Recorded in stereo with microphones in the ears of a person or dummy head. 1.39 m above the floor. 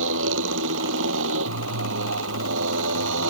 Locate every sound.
0.0 s a motorcycle: 70° right (ahead or behind)